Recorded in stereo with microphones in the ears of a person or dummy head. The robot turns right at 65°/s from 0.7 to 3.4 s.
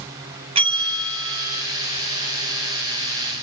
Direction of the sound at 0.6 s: 135° right.